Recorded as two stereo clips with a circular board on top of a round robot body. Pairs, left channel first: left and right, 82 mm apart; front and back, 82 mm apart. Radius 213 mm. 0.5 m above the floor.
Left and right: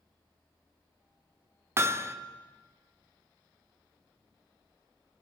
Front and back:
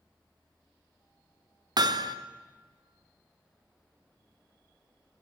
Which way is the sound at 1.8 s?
150° right.